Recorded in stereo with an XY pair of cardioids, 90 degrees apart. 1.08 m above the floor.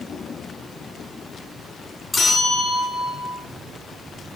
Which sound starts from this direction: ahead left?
A bell, at 2.1 s.